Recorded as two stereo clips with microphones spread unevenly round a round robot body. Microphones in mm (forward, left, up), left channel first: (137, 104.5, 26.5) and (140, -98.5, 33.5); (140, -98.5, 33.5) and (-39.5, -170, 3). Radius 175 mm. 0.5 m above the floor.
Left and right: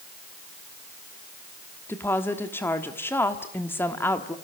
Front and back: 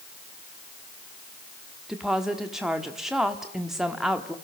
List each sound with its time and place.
1.9 s a woman speaking: 145° left, 1.3 m